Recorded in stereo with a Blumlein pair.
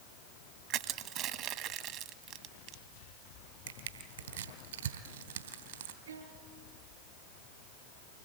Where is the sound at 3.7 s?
65° right, 3 m.